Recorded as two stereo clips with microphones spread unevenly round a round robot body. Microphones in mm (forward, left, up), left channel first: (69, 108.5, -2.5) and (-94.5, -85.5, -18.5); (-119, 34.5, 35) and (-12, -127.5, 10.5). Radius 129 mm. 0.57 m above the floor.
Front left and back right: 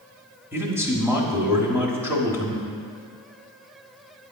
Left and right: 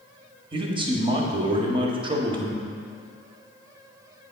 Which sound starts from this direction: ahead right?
A man speaking, at 0.5 s.